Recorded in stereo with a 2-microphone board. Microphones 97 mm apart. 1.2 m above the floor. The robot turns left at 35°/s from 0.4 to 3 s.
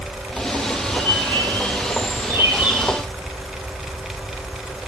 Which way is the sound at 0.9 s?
105° right.